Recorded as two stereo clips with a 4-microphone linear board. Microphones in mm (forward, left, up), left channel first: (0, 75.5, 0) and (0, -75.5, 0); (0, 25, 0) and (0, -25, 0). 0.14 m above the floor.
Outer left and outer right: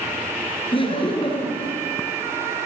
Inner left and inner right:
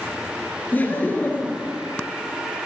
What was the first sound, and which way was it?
Laughter, 35° left (ahead or behind).